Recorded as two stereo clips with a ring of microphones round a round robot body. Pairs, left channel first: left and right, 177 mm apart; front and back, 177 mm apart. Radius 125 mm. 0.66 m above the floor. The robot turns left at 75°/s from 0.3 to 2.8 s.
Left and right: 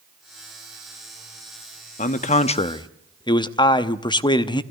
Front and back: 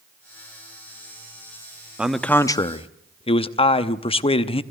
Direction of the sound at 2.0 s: 100° left.